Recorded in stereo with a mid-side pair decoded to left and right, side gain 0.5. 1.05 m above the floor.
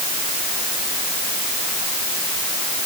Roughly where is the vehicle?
I don't hear a vehicle.